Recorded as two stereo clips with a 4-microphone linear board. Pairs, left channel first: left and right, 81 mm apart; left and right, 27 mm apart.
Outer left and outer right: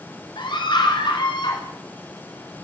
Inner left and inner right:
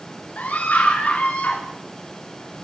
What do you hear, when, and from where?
0.4 s a scream: 80° left, 3 m